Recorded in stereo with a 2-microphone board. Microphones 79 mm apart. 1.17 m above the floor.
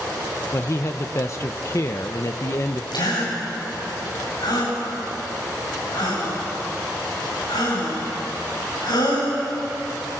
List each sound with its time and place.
0.5 s a man speaking: 40° left (ahead or behind), 0.8 m
2.9 s a gasp: 75° left (ahead or behind), 7.5 m